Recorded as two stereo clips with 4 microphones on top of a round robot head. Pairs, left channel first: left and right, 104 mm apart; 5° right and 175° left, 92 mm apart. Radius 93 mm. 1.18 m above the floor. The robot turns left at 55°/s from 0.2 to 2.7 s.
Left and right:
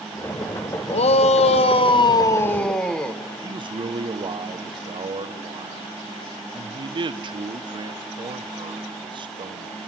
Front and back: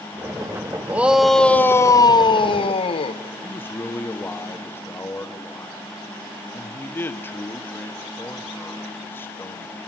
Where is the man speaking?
65° right, 1.0 m.